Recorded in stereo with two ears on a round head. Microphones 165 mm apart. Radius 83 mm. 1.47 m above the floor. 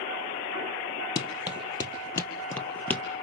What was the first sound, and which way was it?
Running footsteps, 25° left (ahead or behind).